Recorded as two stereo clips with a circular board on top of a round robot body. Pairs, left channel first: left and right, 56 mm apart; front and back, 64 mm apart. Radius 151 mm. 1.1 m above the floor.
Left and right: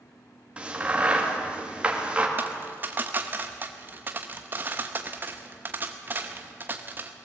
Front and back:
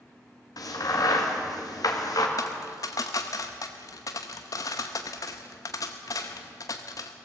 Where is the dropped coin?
35° right, 0.6 m.